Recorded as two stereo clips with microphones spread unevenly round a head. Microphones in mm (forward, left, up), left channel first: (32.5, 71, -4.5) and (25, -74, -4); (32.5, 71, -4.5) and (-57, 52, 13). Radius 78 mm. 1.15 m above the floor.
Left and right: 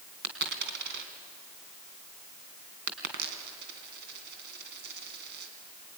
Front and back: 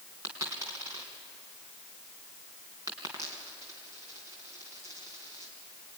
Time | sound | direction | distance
0.2 | a dropped coin | 105° right | 3 m